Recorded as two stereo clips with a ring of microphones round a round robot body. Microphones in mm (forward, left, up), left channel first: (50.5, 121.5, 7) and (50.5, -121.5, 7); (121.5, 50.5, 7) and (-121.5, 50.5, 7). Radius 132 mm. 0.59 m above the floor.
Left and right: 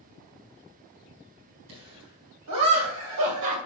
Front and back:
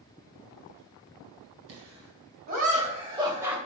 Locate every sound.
1.7 s laughter: 135° right, 4 m; by 3.6 s 95° right, 2.5 m